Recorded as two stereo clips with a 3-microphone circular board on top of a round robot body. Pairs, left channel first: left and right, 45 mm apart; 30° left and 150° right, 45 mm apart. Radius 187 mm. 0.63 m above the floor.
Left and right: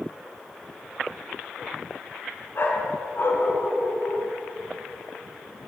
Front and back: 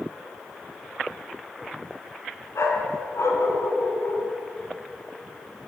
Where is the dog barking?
50° left, 3 m.